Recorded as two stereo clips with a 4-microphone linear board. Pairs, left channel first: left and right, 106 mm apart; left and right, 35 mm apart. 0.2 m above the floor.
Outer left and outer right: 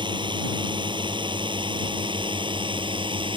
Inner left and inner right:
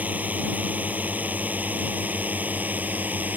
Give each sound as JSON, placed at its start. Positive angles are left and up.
{"t": 0.0, "sound": "a drone", "side_deg": -45}